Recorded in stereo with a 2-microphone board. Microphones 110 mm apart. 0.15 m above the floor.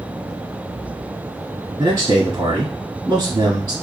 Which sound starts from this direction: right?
A man speaking, at 1.8 s.